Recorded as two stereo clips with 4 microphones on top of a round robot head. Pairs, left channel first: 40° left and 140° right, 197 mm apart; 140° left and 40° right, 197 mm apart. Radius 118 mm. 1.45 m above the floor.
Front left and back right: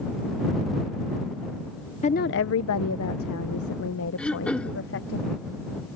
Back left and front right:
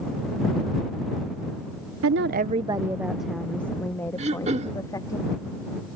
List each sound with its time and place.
2.0 s a woman speaking: 20° right; by 5.2 s 65° left
4.2 s throat clearing: 40° right